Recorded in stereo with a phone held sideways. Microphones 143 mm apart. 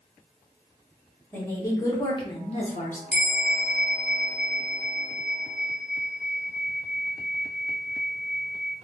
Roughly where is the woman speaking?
Centre.